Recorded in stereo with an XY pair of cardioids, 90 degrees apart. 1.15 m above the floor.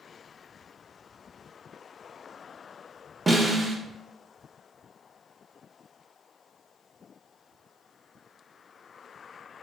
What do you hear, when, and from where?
3.3 s a snare drum: 20° right, 0.8 m